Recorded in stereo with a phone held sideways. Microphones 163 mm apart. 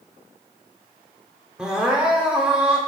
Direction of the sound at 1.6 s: 5° right (ahead or behind).